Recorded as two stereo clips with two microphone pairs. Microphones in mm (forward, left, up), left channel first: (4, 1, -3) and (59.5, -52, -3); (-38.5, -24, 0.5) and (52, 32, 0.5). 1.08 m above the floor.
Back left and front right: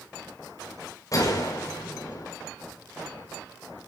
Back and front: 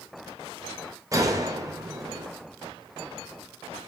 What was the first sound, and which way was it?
A gunshot, 90° left.